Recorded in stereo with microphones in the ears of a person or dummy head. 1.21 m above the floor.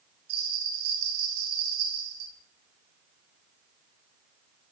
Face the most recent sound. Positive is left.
turn(degrees=-75)  # may be behind; listen again after turning